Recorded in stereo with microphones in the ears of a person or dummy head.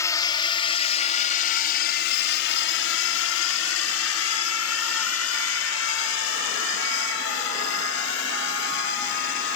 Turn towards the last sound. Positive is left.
turn(degrees=60)  # may be behind; listen again after turning